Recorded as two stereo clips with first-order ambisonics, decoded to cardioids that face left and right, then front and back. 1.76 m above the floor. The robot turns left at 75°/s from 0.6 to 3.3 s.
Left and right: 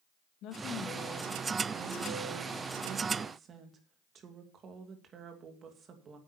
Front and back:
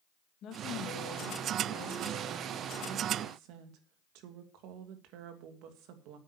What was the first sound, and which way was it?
A woman speaking, 50° left.